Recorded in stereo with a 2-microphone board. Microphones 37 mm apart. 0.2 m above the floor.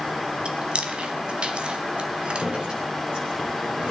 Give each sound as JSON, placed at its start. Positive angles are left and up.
{"t": 0.5, "sound": "chewing", "side_deg": -25, "distance_m": 1.1}
{"t": 2.4, "sound": "dripping", "side_deg": -25, "distance_m": 5.5}